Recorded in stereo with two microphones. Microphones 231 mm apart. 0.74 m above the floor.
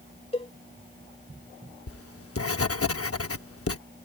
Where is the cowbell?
25° left (ahead or behind).